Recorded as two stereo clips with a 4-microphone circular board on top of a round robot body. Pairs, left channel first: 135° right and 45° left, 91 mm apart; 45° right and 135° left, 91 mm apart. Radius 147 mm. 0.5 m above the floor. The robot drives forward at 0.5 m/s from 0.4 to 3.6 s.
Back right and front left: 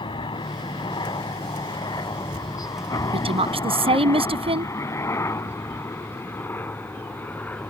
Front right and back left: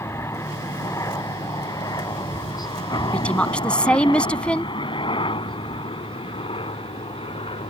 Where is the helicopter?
105° right; by 7.7 s 60° right.